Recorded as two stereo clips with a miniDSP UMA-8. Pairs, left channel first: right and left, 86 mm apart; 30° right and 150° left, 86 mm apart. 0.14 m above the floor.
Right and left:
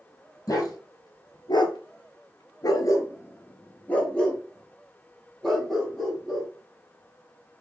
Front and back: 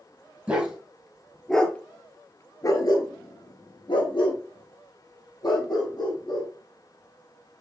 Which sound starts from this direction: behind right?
A dog barking, at 0.5 s.